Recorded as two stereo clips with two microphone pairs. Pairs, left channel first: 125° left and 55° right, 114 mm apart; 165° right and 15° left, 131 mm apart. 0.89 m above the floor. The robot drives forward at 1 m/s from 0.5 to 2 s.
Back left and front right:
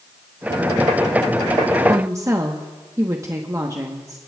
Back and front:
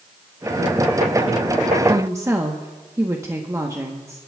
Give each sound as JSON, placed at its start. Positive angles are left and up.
{"t": 1.9, "sound": "a woman speaking", "azimuth_deg": -20, "distance_m": 1.0}